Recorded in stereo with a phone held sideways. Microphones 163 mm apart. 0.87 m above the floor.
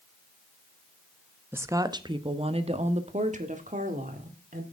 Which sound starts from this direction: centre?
A woman speaking, at 1.5 s.